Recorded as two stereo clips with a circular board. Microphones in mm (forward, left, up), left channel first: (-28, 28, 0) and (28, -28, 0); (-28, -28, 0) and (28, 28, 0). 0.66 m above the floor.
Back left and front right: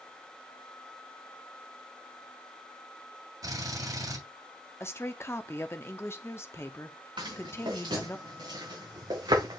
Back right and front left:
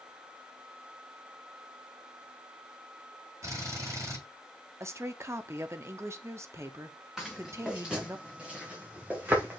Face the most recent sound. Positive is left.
turn(degrees=-15)